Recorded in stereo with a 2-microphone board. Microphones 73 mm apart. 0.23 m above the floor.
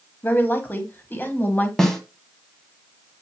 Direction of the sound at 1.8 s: 10° left (ahead or behind).